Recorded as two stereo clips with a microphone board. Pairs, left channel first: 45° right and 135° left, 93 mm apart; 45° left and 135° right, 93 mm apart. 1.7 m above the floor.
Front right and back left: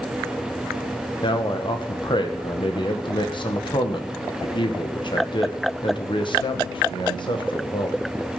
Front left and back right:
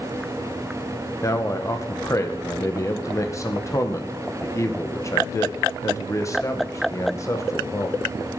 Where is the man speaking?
15° right, 1.7 m.